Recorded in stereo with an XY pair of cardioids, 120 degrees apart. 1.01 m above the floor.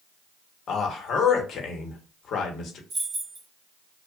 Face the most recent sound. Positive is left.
turn(degrees=-35)